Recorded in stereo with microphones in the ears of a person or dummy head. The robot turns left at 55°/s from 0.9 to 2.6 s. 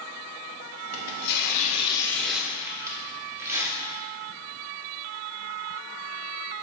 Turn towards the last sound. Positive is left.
turn(degrees=-15)